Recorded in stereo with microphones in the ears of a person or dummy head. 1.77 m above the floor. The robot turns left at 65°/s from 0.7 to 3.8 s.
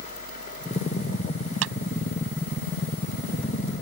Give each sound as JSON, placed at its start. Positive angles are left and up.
{"t": 1.6, "sound": "a clap", "side_deg": -75}